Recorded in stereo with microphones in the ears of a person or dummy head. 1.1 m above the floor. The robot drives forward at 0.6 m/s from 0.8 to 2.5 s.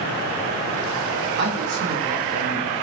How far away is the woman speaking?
About 0.7 m.